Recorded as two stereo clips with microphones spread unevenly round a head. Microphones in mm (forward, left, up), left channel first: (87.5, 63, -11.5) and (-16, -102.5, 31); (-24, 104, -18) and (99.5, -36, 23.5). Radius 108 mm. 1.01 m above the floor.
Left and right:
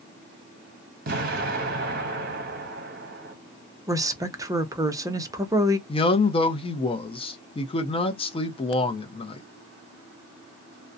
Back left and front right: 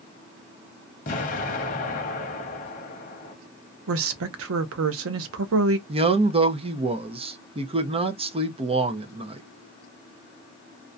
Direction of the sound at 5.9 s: 15° left.